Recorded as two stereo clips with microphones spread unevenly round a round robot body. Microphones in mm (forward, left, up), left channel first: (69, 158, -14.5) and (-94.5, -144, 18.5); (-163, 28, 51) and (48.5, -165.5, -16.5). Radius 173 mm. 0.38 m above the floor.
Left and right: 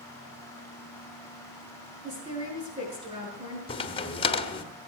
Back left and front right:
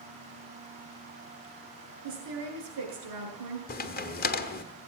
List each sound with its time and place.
2.0 s a woman speaking: 40° right, 6 m
3.7 s a crack: 95° left, 1.1 m